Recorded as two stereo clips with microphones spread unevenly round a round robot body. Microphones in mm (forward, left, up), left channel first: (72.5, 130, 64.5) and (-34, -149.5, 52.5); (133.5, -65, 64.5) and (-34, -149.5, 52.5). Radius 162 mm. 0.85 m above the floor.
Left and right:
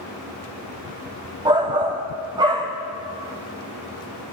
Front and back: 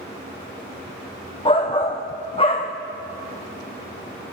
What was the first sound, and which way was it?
A shout, 35° right.